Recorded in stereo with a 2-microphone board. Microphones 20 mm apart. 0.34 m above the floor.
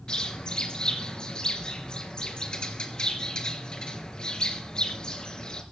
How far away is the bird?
About 3 m.